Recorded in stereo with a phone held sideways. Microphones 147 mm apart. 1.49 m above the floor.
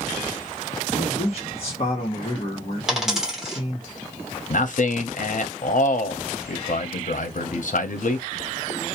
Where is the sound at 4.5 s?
65° left (ahead or behind), 0.6 m.